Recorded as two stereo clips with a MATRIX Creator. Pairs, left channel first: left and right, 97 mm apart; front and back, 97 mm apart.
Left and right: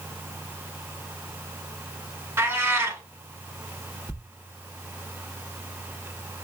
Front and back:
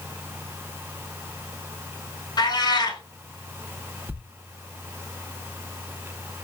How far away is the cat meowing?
About 0.9 m.